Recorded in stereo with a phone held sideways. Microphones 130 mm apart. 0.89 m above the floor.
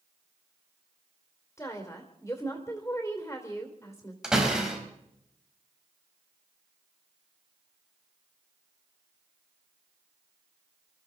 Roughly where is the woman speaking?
Left.